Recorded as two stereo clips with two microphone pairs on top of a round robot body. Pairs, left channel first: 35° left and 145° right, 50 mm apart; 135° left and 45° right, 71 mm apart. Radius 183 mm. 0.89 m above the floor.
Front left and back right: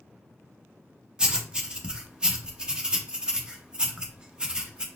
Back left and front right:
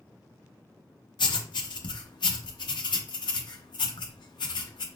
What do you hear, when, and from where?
1.2 s writing: 140° left, 0.7 m